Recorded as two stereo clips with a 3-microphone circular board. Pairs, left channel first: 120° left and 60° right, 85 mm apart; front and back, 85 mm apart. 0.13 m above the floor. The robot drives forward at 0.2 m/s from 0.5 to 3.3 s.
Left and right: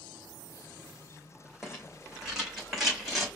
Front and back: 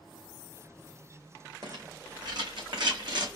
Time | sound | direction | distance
1.6 | a rattle | 145° right | 2.5 m